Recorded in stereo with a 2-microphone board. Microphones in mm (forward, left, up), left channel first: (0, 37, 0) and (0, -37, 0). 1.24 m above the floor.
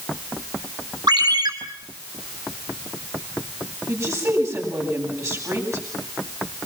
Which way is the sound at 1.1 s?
80° right.